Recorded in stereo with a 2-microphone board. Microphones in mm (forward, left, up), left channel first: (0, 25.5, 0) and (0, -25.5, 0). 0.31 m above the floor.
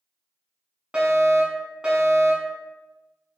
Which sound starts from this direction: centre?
A fire alarm, at 0.9 s.